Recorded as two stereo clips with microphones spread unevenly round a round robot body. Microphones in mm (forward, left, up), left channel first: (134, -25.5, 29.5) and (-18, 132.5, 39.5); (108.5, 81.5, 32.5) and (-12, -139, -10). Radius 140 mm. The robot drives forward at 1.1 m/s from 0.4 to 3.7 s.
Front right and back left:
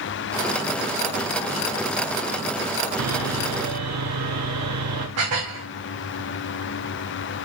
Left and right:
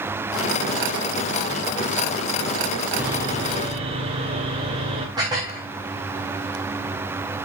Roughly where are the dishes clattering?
Behind.